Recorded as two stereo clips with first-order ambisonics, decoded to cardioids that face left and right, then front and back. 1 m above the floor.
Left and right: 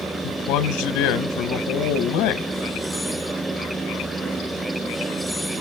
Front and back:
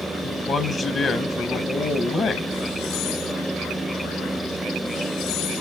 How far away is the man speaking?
About 0.7 m.